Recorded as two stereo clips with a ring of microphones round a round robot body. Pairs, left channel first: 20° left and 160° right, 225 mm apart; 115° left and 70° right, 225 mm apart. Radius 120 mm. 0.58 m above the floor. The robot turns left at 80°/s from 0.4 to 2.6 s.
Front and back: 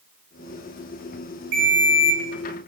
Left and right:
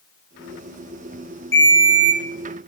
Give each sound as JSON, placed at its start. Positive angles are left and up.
{"t": 1.5, "sound": "a ringtone", "azimuth_deg": -170, "distance_m": 1.3}